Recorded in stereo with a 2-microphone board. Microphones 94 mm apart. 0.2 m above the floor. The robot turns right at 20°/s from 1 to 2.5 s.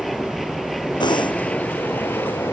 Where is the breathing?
50° left (ahead or behind); by 1.4 s 60° left (ahead or behind).